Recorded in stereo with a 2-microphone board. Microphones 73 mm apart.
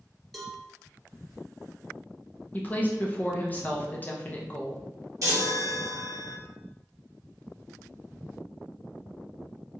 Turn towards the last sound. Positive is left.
turn(degrees=-55)  # may be behind; listen again after turning